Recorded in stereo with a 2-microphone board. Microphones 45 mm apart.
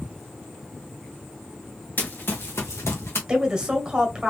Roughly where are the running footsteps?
Left.